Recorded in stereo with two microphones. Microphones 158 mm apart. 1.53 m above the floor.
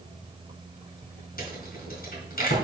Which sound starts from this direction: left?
A rattle, at 1.4 s.